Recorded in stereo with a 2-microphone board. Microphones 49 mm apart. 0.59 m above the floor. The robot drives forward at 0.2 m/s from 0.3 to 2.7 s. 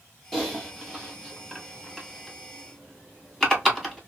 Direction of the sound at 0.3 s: 10° left (ahead or behind).